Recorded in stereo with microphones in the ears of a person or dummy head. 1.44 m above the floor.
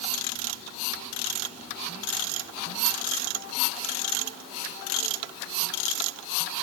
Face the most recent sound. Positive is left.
No sound to turn to.